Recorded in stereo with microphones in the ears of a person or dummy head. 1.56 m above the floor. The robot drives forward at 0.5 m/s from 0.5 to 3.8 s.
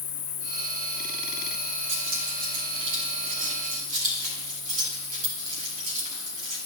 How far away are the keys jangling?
About 2.0 m.